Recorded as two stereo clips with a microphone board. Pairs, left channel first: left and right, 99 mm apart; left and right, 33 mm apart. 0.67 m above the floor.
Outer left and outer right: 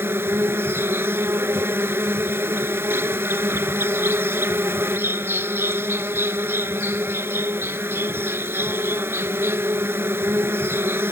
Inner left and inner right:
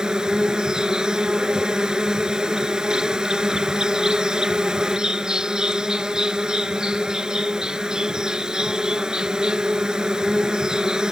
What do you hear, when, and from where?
0.0 s an insect: 25° right (ahead or behind)